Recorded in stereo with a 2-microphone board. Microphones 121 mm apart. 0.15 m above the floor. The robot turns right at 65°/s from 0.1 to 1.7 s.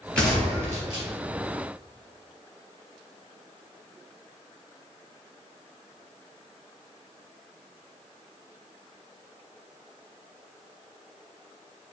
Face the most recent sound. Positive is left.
turn(degrees=-90)